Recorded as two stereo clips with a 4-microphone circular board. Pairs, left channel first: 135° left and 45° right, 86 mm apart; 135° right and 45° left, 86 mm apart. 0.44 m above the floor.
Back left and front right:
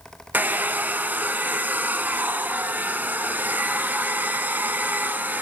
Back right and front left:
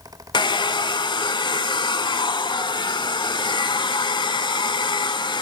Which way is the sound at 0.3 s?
115° right.